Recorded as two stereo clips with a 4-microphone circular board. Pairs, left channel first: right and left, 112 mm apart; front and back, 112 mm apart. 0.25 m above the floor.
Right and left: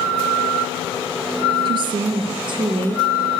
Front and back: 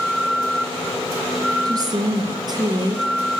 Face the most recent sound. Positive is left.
turn(degrees=130)